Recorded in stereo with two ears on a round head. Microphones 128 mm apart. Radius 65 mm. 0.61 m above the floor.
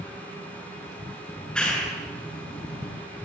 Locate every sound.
1.3 s a clap: 5° left (ahead or behind), 8 m